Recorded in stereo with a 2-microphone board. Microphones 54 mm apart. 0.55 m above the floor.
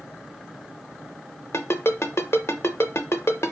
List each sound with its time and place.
1.5 s a ringtone: 55° left (ahead or behind), 0.5 m